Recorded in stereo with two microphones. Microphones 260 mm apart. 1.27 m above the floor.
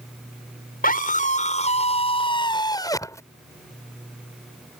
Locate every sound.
0.8 s a scream: 35° left (ahead or behind); by 3.2 s 10° left (ahead or behind)